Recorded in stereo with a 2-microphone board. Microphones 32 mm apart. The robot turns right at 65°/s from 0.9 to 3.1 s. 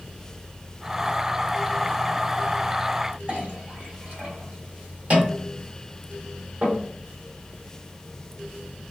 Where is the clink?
50° right (ahead or behind), 1.2 m.